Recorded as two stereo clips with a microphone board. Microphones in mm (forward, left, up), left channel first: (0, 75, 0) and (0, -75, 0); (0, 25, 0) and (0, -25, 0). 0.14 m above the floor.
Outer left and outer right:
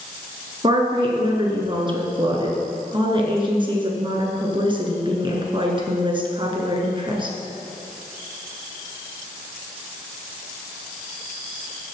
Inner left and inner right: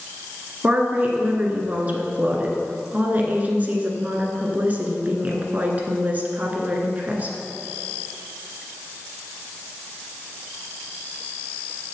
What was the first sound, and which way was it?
A woman speaking, 30° right (ahead or behind).